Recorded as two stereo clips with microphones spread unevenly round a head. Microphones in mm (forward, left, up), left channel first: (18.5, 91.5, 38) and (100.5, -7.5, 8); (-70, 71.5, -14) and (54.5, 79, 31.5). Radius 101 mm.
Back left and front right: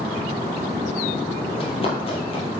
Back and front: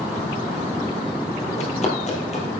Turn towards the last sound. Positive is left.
turn(degrees=145)